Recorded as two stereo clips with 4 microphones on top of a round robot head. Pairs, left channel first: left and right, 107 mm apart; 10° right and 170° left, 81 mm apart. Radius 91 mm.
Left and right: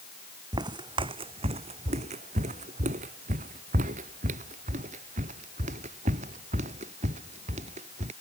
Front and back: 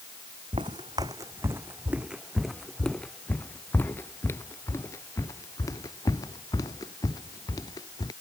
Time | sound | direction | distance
0.5 | footsteps | 140° right | ?